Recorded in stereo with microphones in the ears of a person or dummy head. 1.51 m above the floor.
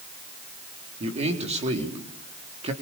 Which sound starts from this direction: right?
A man speaking, at 1.0 s.